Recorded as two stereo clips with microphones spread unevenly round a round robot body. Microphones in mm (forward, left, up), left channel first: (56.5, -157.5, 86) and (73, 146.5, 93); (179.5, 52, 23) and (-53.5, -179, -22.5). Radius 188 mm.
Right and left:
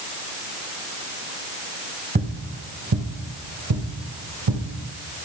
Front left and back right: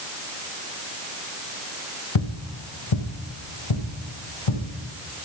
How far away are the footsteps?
About 1.3 m.